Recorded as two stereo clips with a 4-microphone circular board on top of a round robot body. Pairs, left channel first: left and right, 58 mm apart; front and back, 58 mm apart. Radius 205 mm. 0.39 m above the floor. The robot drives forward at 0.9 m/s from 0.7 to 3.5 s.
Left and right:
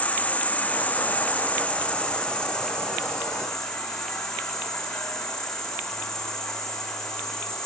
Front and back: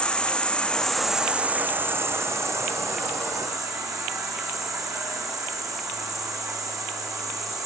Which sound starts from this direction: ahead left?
An insect, at 0.0 s.